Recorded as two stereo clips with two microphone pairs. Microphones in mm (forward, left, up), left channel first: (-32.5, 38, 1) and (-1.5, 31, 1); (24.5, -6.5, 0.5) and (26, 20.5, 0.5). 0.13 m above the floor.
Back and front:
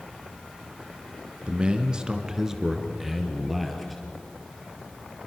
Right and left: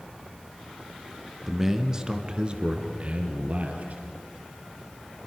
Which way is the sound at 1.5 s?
15° left.